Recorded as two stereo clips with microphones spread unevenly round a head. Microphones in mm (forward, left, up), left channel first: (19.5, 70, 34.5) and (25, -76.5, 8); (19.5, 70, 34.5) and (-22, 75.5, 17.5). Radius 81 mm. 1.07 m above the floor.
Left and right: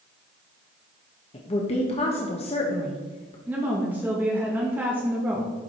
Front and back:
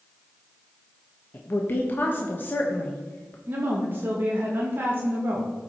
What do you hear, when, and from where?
1.3 s a woman speaking: 40° left, 1.2 m
3.5 s a woman speaking: 165° right, 1.6 m